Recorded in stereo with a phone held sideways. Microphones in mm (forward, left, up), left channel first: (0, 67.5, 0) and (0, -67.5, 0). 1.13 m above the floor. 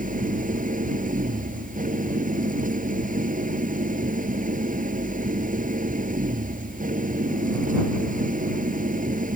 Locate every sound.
0.0 s an engine running: 85° right